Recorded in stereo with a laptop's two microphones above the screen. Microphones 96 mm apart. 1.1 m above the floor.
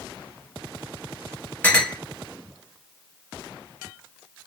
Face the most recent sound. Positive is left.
turn(degrees=15)  # may be behind; listen again after turning